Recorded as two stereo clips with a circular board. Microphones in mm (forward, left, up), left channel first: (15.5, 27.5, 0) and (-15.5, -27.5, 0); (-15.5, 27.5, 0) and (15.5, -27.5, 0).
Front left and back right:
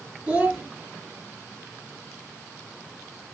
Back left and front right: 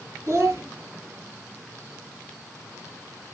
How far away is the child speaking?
About 1.6 m.